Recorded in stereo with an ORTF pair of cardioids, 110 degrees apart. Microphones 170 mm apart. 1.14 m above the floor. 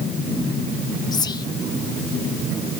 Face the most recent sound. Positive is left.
turn(degrees=25)